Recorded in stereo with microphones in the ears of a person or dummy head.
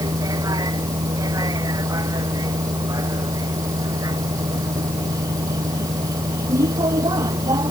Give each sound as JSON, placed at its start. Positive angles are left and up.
{"t": 0.0, "sound": "a vehicle", "side_deg": -25}